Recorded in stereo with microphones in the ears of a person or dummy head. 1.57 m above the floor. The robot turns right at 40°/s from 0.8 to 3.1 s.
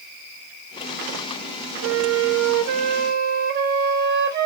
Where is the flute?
105° right, 0.9 m; by 4.5 s 55° right, 0.9 m.